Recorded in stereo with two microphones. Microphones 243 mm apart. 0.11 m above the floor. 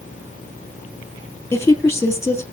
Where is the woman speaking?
10° left (ahead or behind), 2.5 m.